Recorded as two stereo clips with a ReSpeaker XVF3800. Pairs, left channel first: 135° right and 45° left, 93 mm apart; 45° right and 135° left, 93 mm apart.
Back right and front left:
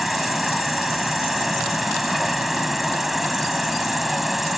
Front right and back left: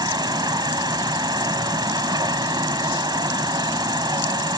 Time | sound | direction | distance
0.0 | an insect | 135° left | ?